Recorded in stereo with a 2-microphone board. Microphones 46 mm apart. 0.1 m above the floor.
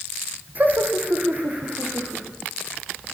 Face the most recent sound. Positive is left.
turn(degrees=-35)  # may be behind; listen again after turning